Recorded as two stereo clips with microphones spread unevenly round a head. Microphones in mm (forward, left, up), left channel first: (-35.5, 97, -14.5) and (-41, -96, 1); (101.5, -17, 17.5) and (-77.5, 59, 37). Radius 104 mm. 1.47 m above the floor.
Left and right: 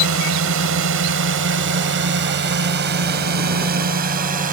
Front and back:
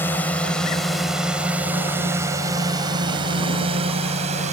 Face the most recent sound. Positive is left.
turn(degrees=-140)